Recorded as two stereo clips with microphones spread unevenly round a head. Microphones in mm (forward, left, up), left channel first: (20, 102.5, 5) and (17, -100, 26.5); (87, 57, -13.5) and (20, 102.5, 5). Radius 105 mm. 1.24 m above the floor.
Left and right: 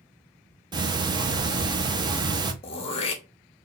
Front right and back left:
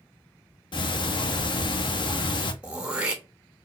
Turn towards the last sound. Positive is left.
turn(degrees=130)